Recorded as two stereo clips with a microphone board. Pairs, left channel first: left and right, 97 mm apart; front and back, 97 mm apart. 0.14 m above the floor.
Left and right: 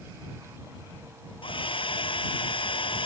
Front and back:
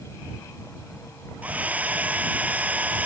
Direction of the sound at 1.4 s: 105° left.